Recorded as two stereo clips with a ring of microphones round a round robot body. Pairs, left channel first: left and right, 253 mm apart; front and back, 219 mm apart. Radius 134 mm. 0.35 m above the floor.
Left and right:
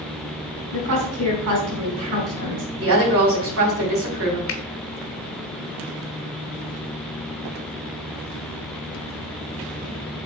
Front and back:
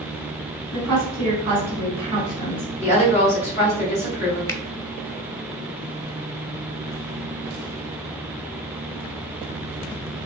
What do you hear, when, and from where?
0.7 s a woman speaking: 110° right, 3.5 m
2.8 s a woman speaking: 65° right, 2.5 m
4.5 s a finger snap: 75° left, 1.5 m